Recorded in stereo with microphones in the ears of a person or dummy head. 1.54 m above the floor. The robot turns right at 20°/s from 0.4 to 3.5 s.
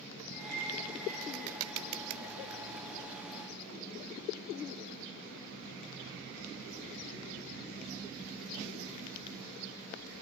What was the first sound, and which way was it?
A clink, 65° right (ahead or behind).